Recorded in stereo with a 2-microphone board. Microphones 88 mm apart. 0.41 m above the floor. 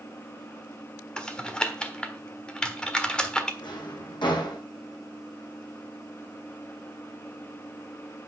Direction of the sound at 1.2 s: 10° left (ahead or behind).